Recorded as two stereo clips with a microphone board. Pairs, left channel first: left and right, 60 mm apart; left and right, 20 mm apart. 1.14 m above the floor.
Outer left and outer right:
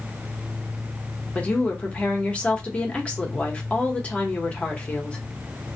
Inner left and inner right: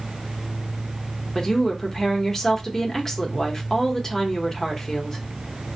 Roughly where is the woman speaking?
Left.